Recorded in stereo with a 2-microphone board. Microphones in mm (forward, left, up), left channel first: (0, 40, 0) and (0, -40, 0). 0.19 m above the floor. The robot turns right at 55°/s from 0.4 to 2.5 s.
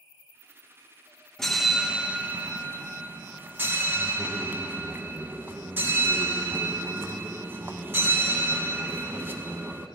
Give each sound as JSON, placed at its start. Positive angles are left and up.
{"t": 1.4, "sound": "a bell", "azimuth_deg": 170, "distance_m": 0.5}